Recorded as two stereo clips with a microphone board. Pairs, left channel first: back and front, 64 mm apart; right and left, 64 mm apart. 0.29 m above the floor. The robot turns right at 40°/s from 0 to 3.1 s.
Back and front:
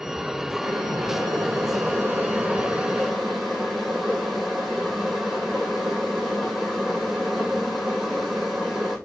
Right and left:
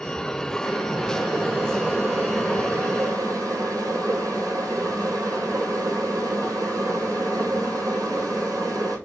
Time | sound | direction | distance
0.6 | boiling | 10° right | 1.6 m